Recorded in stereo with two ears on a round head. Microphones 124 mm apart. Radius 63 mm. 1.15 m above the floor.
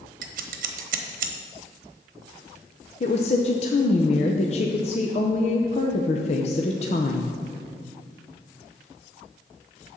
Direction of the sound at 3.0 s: 50° left (ahead or behind).